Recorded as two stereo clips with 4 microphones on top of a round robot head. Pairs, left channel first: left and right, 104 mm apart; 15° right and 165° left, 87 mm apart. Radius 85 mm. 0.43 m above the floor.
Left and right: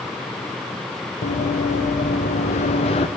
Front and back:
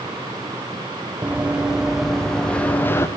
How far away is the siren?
I don't hear a siren.